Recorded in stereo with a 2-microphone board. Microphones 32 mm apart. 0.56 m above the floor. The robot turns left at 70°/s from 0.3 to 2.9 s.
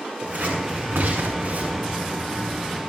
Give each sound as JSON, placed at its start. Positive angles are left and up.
{"t": 0.2, "sound": "scissors", "side_deg": -40, "distance_m": 7.5}